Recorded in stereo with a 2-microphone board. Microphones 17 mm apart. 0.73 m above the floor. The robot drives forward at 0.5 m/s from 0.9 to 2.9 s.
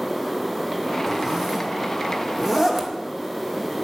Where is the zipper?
30° right (ahead or behind), 1.2 m; by 2.9 s 15° right (ahead or behind), 2.0 m.